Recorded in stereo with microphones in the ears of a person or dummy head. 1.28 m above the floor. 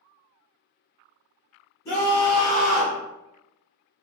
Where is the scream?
10° left (ahead or behind), 1.4 m; by 3.0 s 10° right (ahead or behind), 0.9 m.